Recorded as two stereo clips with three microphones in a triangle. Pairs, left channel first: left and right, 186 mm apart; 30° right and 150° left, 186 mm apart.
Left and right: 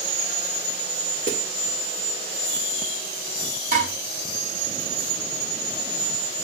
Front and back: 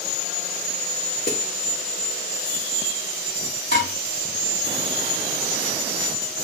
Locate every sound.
1.3 s a snare drum: 55° right, 2 m
3.7 s dishes clattering: 50° right, 3.5 m